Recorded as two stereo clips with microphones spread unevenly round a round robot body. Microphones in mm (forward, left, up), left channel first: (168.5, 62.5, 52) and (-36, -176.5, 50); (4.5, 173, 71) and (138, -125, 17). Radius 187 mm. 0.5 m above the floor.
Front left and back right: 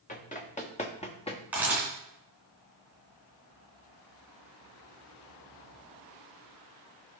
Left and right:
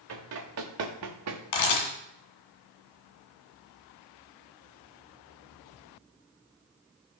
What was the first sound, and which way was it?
Running footsteps, 15° right.